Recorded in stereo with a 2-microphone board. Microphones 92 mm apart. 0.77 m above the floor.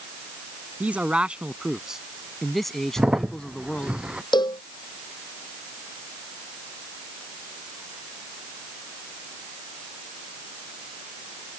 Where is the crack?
10° right (ahead or behind).